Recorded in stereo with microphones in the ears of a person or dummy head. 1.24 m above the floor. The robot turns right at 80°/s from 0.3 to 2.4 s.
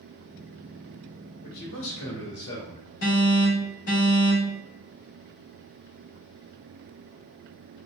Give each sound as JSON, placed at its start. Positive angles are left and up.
{"t": 1.4, "sound": "a man speaking", "azimuth_deg": 35, "distance_m": 1.9}
{"t": 3.0, "sound": "an alarm", "side_deg": 85, "distance_m": 2.5}